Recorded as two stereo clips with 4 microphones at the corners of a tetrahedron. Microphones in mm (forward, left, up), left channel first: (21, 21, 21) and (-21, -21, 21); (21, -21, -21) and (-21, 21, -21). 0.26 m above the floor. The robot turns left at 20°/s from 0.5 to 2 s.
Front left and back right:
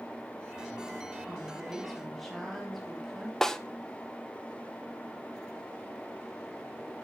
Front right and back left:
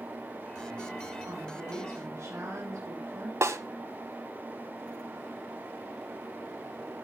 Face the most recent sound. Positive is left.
turn(degrees=125)